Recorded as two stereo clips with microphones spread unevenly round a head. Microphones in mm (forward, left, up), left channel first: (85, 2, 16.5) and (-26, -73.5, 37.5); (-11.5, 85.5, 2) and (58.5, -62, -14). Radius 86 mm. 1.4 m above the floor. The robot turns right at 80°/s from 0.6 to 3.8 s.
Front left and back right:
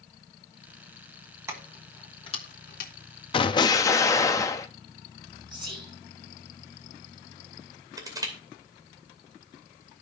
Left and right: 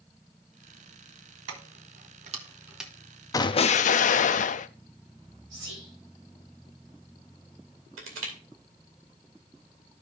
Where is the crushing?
80° right, 2.5 m.